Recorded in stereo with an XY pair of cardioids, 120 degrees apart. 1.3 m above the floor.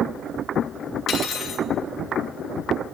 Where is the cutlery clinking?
60° left, 1.2 m.